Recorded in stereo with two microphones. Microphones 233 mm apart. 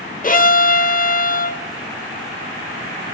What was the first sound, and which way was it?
A violin, 35° left (ahead or behind).